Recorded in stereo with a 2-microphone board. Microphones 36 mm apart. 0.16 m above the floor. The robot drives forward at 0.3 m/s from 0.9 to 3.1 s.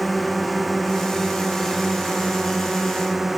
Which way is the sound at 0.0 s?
5° left (ahead or behind).